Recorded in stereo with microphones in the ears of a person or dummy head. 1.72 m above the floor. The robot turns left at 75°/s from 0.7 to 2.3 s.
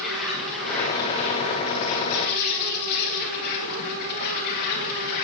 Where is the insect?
175° left, 3.5 m; by 5.2 s 55° left, 3.5 m.